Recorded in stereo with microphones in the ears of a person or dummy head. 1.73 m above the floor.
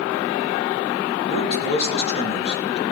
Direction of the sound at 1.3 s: 35° left (ahead or behind).